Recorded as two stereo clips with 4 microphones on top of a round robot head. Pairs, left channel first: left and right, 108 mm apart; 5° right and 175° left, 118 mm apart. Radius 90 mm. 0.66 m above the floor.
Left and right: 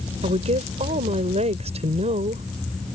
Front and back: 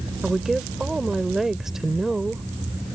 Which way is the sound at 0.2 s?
95° right.